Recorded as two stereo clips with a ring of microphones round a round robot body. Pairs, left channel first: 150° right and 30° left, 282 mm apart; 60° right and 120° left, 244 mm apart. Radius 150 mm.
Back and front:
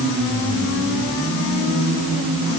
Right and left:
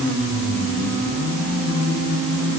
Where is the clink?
No clink in this recording.